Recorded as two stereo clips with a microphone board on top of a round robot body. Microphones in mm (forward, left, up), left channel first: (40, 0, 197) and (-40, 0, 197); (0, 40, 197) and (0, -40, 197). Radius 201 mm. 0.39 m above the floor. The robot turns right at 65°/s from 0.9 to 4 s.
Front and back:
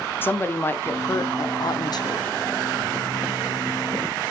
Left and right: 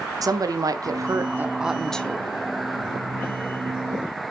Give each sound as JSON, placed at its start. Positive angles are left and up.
{"t": 0.2, "sound": "a woman speaking", "azimuth_deg": -60, "distance_m": 1.4}